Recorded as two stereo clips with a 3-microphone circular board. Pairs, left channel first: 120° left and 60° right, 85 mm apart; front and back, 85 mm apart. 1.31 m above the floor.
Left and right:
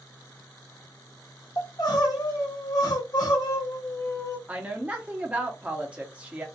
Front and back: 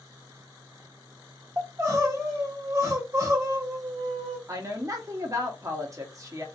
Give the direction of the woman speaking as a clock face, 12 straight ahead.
4 o'clock.